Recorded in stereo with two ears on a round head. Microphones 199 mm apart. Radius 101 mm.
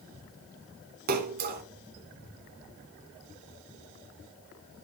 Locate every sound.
1.1 s a splash: 45° right (ahead or behind), 0.9 m